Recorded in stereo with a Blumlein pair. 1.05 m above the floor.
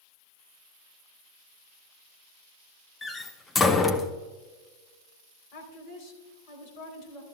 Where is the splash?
I don't hear a splash.